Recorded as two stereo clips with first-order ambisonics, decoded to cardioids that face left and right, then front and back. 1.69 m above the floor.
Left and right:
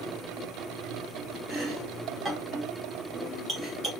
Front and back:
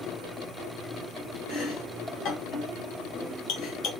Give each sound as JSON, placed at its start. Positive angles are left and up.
{"t": 1.5, "sound": "chopping", "azimuth_deg": -10, "distance_m": 1.8}